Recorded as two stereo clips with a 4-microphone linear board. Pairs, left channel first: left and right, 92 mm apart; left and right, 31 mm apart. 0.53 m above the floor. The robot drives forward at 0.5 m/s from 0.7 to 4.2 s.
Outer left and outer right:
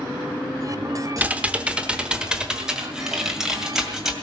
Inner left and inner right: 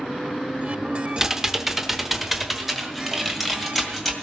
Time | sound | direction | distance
1.2 | typing on a keyboard | 15° right (ahead or behind) | 0.7 m